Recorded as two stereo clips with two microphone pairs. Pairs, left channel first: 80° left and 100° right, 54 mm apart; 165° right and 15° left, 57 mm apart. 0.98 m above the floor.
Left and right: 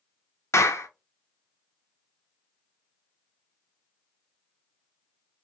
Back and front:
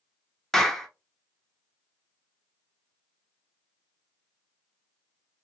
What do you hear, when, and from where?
0.5 s a clap: 115° left, 0.8 m